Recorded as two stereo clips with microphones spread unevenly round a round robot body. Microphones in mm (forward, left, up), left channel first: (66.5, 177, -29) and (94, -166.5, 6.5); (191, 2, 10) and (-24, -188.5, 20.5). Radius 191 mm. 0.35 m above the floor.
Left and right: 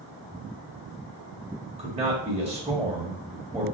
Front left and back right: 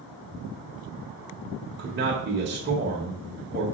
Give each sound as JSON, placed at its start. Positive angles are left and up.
{"t": 1.8, "sound": "a man speaking", "azimuth_deg": -155, "distance_m": 1.6}